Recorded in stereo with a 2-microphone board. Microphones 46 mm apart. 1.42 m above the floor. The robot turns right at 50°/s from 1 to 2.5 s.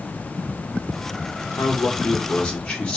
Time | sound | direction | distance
1.6 | a man speaking | 115° left | 1.1 m